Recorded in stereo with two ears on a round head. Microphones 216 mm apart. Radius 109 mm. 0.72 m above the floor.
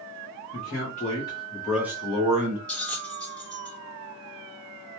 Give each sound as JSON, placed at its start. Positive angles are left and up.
{"t": 0.5, "sound": "a man speaking", "side_deg": 40, "distance_m": 1.4}
{"t": 2.7, "sound": "a bell", "side_deg": 5, "distance_m": 1.7}